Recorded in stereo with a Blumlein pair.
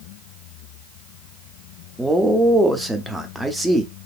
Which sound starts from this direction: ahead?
A man speaking, at 2.0 s.